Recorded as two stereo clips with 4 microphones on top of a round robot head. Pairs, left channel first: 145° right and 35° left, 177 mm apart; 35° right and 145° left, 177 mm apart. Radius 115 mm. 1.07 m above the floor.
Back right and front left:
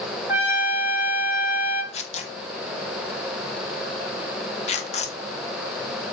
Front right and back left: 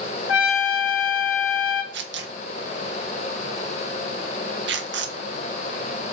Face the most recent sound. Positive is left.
turn(degrees=160)